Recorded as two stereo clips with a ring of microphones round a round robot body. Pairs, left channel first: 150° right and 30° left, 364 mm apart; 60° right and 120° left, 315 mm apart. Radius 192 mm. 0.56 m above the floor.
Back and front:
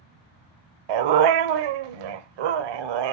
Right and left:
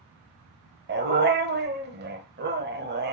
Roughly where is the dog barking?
Ahead left.